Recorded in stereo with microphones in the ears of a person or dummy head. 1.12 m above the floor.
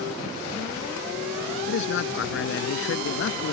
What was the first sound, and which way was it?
A man speaking, 75° left (ahead or behind).